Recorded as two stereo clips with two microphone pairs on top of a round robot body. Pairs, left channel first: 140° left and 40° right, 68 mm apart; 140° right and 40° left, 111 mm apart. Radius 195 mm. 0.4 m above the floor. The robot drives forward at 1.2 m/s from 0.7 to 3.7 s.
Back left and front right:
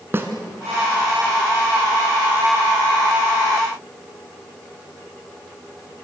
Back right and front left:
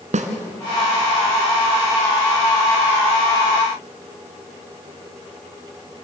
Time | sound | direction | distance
0.1 | a snare drum | 15° left | 1.4 m